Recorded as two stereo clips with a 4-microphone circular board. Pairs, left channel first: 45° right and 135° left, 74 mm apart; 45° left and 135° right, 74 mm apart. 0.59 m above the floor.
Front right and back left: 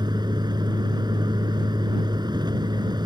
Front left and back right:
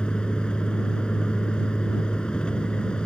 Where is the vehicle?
125° left.